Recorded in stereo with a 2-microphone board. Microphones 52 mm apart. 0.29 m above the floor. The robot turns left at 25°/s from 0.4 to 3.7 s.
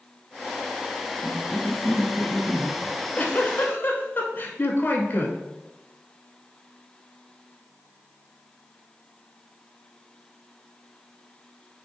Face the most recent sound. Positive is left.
turn(degrees=40)  # may be behind; listen again after turning